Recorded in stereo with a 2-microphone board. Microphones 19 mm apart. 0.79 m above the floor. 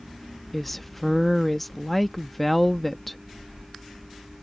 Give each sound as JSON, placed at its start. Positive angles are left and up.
{"t": 0.5, "sound": "a woman speaking", "side_deg": 5}